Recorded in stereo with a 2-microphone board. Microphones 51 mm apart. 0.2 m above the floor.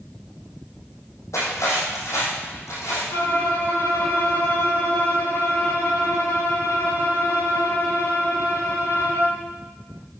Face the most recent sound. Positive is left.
turn(degrees=75)  # may be behind; listen again after turning